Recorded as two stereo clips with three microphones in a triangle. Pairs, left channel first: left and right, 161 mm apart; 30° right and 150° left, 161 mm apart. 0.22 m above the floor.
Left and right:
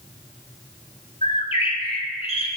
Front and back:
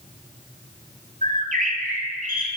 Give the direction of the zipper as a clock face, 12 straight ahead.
I don't hear a zipper.